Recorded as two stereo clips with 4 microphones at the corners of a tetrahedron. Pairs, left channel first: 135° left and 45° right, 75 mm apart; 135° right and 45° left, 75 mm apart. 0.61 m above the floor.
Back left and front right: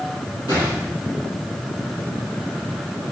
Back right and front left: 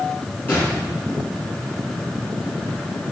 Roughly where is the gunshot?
Behind.